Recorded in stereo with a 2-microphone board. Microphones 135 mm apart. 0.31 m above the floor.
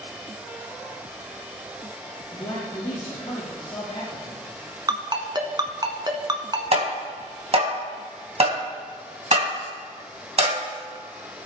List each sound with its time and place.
2.3 s a man speaking: 30° left (ahead or behind), 4 m
4.9 s a ringtone: 30° right (ahead or behind), 1.3 m
6.7 s tapping: 50° right (ahead or behind), 2 m